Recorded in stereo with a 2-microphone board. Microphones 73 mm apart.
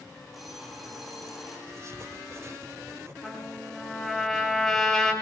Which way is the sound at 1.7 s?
40° right (ahead or behind).